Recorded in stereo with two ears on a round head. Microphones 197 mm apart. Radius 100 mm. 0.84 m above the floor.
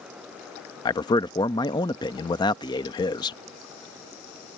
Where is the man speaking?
20° left (ahead or behind).